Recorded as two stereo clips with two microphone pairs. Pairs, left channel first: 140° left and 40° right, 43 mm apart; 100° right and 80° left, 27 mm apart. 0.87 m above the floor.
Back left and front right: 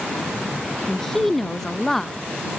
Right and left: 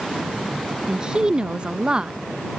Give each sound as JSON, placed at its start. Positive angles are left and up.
{"t": 0.9, "sound": "a woman speaking", "azimuth_deg": 65}